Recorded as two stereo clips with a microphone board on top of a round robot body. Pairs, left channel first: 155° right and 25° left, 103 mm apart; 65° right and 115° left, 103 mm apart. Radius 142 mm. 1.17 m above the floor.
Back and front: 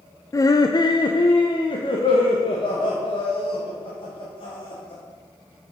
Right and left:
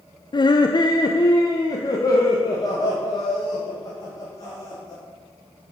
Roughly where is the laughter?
Right.